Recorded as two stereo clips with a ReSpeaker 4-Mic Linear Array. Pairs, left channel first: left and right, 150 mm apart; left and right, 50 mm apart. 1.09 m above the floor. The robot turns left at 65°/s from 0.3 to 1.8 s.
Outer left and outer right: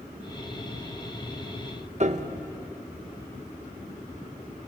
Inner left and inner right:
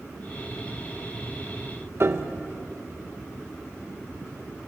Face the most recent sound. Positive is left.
turn(degrees=-45)  # may be behind; listen again after turning